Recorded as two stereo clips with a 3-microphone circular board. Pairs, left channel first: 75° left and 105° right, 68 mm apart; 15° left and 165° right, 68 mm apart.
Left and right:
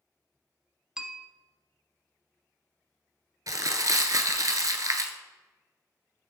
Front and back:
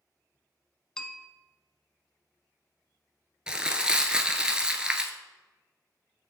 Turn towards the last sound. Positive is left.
turn(degrees=-90)